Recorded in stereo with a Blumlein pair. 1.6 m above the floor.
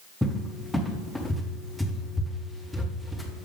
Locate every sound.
0.2 s a cupboard door: straight ahead, 1.2 m